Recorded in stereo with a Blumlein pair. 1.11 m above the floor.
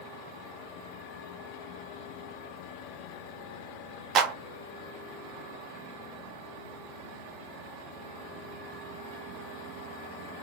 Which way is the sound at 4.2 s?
25° right.